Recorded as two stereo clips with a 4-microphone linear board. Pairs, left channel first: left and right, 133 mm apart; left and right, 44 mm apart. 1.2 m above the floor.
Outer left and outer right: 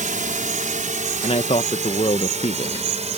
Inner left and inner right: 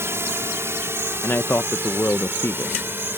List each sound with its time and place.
0.0 s a drone: 75° right (ahead or behind); by 3.2 s 55° right (ahead or behind)
1.2 s a man speaking: 50° left (ahead or behind)